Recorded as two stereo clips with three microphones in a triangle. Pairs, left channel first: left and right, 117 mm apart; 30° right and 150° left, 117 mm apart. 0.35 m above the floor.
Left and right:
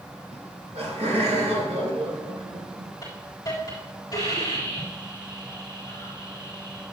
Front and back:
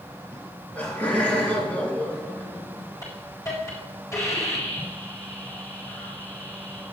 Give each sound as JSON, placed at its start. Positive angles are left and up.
{"t": 0.3, "sound": "laughter", "azimuth_deg": -105, "distance_m": 4.0}
{"t": 3.0, "sound": "a hiss", "azimuth_deg": 30, "distance_m": 4.5}